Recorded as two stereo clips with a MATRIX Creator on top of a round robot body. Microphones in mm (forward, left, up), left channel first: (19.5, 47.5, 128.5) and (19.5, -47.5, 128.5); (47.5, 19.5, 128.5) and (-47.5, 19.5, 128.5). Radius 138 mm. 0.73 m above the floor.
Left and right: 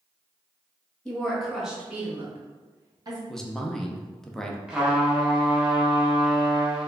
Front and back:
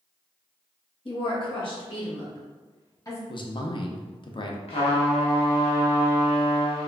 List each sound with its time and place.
1.1 s a woman speaking: 10° left, 1.6 m; by 3.2 s 55° right, 1.4 m
3.3 s a man speaking: 5° left, 0.8 m
4.7 s a trumpet: 5° right, 1.0 m